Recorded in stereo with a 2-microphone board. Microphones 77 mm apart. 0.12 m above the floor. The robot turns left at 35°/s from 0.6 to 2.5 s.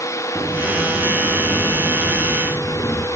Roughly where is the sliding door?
Behind.